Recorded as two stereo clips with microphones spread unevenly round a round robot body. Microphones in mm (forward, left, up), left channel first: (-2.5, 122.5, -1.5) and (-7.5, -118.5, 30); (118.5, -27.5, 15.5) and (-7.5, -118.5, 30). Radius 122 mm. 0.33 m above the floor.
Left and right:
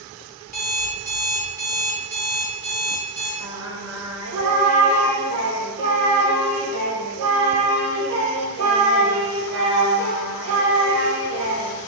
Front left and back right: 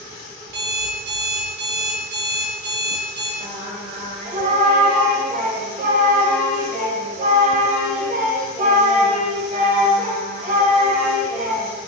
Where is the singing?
110° right, 0.8 m.